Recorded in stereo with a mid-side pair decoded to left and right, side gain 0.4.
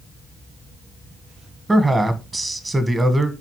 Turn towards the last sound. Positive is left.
turn(degrees=-20)